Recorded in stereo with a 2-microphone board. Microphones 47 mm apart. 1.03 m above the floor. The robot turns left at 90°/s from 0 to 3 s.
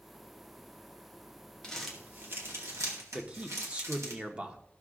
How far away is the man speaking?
About 1.0 m.